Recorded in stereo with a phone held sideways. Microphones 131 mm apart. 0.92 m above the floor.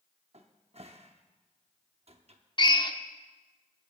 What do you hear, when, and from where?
0.3 s a cupboard door: 55° right (ahead or behind), 0.8 m
2.6 s a drill: 35° left (ahead or behind), 0.6 m